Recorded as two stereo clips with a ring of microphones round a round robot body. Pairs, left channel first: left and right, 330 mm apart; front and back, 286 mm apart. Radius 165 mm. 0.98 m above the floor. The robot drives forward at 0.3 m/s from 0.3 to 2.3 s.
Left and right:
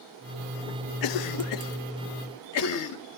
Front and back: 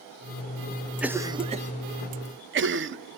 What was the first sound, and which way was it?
A cough, 95° left.